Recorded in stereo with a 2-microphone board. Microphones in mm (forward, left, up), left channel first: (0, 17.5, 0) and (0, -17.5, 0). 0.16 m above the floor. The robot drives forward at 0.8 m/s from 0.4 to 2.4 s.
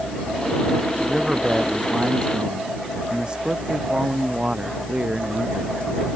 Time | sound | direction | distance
1.0 | a man speaking | 25° right (ahead or behind) | ?